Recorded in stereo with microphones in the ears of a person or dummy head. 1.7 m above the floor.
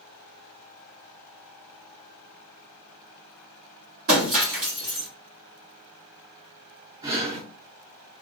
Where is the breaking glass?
35° right (ahead or behind), 1.2 m.